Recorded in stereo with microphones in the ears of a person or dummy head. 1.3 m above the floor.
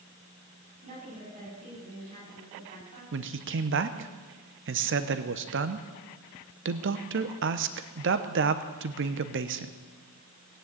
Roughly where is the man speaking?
Right.